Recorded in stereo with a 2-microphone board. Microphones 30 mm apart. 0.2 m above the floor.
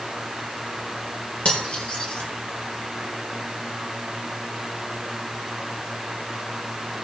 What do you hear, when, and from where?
1.4 s cutlery clinking: 55° left (ahead or behind), 3 m